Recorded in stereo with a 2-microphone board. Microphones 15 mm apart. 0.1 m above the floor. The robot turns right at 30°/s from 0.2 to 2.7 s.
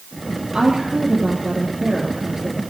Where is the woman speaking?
85° right, 2 m; by 2.6 s 20° right, 2 m.